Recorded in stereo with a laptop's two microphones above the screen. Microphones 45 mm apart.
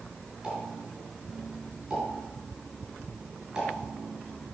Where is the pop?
20° right (ahead or behind), 2.5 m.